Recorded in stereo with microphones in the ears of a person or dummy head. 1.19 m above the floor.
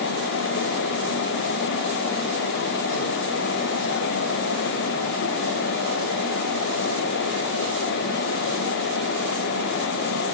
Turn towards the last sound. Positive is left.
No sound to turn to.